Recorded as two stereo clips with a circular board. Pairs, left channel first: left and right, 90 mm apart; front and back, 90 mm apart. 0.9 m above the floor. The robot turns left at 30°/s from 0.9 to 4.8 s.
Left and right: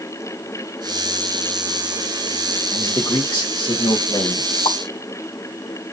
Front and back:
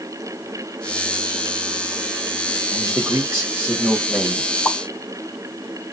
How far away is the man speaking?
About 1.8 m.